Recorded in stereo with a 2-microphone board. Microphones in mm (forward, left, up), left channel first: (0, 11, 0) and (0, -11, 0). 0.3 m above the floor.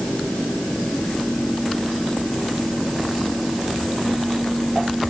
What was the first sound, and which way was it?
Only background noise.